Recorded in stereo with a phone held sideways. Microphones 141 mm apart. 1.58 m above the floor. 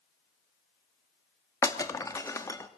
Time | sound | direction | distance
1.6 | breaking glass | 20° left (ahead or behind) | 1.5 m